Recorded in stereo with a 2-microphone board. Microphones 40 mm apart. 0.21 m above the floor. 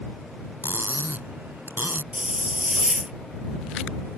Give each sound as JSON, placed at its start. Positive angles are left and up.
{"t": 0.6, "sound": "cutlery clinking", "side_deg": -60}
{"t": 2.1, "sound": "a hiss", "side_deg": -35}